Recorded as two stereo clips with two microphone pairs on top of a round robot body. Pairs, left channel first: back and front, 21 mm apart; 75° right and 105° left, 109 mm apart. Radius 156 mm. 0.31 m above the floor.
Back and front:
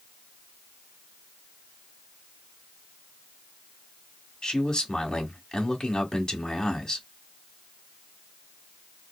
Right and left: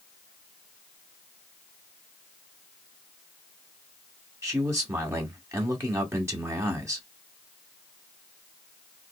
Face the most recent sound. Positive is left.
turn(degrees=135)